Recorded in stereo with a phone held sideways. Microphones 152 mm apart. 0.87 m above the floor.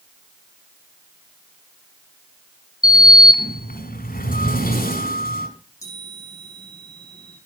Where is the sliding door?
75° left (ahead or behind), 2.5 m.